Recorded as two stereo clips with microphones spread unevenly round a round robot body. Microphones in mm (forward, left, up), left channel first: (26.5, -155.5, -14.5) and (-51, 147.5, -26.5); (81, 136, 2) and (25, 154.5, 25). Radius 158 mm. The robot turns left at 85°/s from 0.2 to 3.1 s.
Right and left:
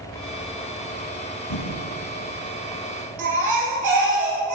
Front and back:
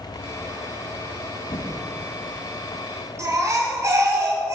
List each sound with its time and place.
1.5 s typing on a keyboard: 55° right, 1.7 m; by 1.7 s 70° right, 1.7 m
3.2 s a baby crying: 135° left, 3.5 m